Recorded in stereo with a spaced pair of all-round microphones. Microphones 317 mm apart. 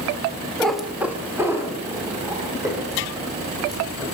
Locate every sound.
0.6 s a cat meowing: centre (ahead or behind), 0.8 m; by 4.0 s 10° right (ahead or behind), 5 m